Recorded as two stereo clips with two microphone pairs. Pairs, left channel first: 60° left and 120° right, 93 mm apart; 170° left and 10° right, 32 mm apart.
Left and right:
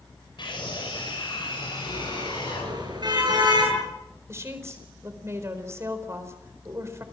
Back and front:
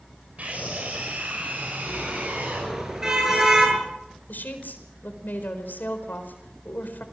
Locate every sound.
0.4 s a scream: 30° left, 4.5 m; by 2.7 s 25° left, 6.5 m
1.9 s a car horn: 80° right, 8.5 m
4.3 s a woman speaking: straight behind, 4.5 m